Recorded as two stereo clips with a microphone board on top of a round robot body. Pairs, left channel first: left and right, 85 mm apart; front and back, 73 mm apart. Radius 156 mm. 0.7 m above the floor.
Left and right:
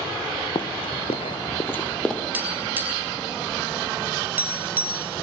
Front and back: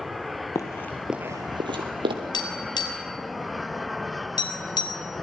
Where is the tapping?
20° right, 4.5 m.